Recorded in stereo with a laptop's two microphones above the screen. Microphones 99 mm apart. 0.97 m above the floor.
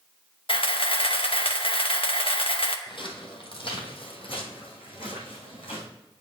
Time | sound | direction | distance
0.5 | a camera shutter | 65° left (ahead or behind) | 0.7 m
2.9 | footsteps | 55° left (ahead or behind) | 1.7 m